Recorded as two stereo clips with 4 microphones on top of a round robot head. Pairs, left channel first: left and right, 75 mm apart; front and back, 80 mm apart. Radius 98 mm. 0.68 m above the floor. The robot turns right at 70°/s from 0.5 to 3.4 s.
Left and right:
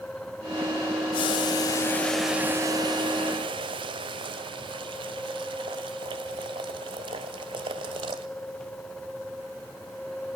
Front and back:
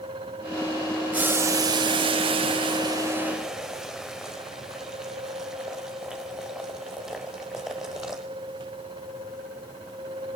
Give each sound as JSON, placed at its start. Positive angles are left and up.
{"t": 1.1, "sound": "boiling", "azimuth_deg": 105, "distance_m": 0.8}